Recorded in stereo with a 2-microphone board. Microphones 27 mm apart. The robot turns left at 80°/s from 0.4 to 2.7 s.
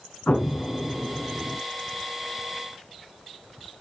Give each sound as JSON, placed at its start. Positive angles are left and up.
{"t": 0.3, "sound": "an explosion", "azimuth_deg": 75, "distance_m": 2.0}